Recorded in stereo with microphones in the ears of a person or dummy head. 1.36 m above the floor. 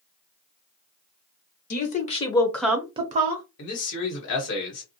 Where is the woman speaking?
50° left (ahead or behind), 0.8 m; by 3.4 s 50° right (ahead or behind), 0.7 m.